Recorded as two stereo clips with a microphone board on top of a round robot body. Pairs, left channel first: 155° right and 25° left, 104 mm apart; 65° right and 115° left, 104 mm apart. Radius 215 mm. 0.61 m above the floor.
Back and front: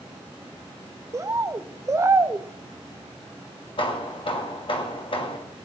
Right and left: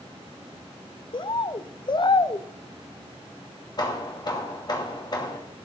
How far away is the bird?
About 0.7 m.